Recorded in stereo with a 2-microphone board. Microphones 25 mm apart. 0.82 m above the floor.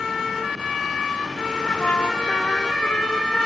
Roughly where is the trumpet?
Left.